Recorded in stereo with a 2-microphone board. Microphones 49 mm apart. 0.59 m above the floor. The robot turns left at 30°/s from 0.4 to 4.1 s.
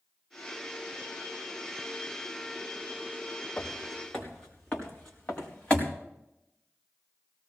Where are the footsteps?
25° left (ahead or behind), 5.5 m; by 5.9 s 20° left (ahead or behind), 4.5 m.